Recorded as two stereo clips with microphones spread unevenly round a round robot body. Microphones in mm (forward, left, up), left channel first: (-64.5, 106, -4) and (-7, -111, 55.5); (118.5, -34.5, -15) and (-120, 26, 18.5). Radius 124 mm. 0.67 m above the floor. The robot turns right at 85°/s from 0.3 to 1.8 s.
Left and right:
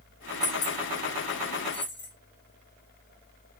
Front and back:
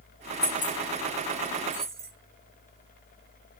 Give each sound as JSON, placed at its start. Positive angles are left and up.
{"t": 0.4, "sound": "keys jangling", "azimuth_deg": 25, "distance_m": 4.5}